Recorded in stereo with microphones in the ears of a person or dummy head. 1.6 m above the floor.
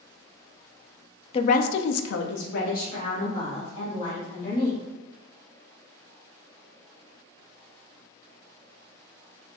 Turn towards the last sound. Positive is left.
turn(degrees=30)  # may be behind; listen again after turning